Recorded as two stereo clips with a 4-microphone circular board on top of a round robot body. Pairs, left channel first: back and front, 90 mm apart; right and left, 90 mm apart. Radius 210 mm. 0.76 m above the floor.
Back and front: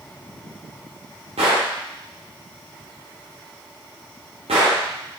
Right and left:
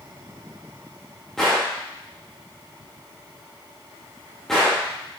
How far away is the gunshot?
About 0.6 m.